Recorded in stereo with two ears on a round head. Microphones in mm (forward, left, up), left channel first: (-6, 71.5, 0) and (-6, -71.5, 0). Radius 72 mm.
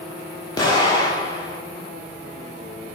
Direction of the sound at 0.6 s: 25° left (ahead or behind).